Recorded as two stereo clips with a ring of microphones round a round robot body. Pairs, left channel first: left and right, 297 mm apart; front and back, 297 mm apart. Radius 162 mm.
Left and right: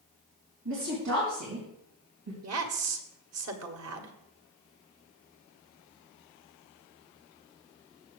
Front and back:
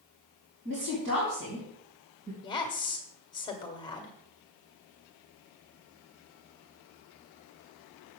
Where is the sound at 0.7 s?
125° right, 3.5 m.